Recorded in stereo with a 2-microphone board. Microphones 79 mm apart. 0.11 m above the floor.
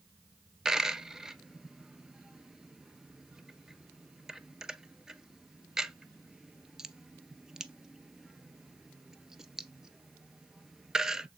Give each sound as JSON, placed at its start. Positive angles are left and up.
{"t": 0.7, "sound": "a dropped coin", "side_deg": -5, "distance_m": 0.5}